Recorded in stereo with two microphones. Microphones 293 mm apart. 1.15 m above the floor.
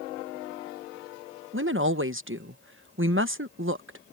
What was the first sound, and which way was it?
A woman speaking, 45° right (ahead or behind).